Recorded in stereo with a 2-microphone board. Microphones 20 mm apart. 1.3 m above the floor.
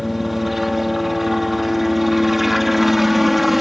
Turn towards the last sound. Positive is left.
turn(degrees=-10)  # may be behind; listen again after turning